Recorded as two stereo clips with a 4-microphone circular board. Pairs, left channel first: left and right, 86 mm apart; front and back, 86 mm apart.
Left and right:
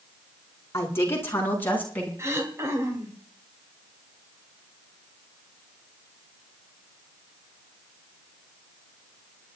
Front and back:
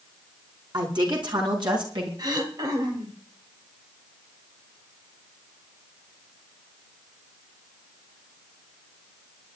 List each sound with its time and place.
0.7 s a woman speaking: 150° left, 5 m; by 2.1 s 160° left, 5 m
2.2 s throat clearing: 145° right, 3 m